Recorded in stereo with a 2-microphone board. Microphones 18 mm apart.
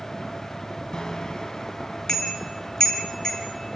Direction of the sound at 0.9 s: 50° left (ahead or behind).